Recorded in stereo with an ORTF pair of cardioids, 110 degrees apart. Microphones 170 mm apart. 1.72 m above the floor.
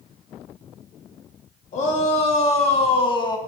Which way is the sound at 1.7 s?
45° left.